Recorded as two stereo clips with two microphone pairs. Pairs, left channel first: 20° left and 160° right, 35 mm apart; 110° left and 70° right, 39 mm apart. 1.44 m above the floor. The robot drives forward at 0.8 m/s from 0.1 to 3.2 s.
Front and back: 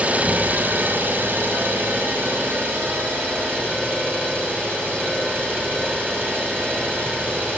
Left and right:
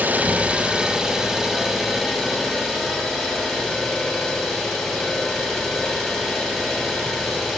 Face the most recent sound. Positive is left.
turn(degrees=-160)